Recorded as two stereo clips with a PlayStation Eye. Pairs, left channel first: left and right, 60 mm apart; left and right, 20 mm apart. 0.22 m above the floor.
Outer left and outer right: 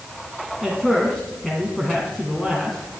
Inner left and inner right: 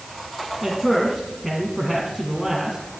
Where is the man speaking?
5° left (ahead or behind), 1.6 m.